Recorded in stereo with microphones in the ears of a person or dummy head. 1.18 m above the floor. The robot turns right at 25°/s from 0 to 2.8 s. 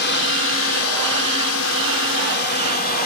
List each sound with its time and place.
0.0 s a drone: 60° left; by 3.1 s 130° left